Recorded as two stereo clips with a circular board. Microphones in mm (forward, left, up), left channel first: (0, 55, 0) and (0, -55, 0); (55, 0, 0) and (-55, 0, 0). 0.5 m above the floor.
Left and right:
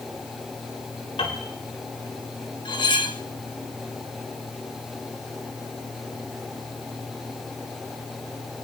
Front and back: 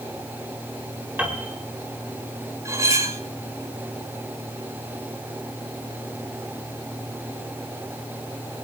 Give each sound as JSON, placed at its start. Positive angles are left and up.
{"t": 1.2, "sound": "a piano", "azimuth_deg": 105, "distance_m": 4.0}
{"t": 2.6, "sound": "cutlery clinking", "azimuth_deg": 125, "distance_m": 1.1}